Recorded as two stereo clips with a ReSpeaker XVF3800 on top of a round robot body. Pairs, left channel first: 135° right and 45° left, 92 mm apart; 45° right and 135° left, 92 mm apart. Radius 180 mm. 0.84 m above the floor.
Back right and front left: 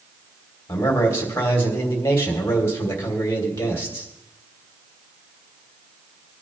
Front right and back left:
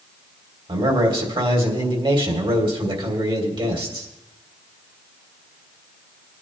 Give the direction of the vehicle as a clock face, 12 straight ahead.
I don't hear a vehicle.